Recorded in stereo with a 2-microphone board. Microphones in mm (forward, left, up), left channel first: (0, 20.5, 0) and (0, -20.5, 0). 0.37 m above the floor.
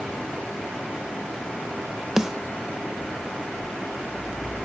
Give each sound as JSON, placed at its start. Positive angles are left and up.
{"t": 2.2, "sound": "a snare drum", "side_deg": -15, "distance_m": 0.7}